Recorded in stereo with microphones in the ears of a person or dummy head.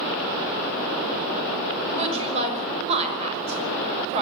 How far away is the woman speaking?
About 5.5 m.